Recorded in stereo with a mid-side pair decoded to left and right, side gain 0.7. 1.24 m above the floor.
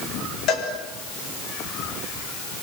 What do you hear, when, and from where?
0.5 s a cowbell: 55° left, 7 m